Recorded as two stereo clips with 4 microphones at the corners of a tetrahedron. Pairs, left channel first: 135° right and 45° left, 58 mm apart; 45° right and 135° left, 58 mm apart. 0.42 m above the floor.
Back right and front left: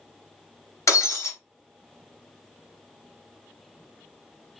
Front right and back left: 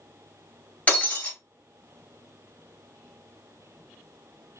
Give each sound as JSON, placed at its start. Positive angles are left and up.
{"t": 0.9, "sound": "breaking glass", "azimuth_deg": -110, "distance_m": 1.6}